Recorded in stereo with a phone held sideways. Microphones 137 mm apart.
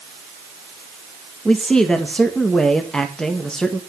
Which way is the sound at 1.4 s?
5° left (ahead or behind).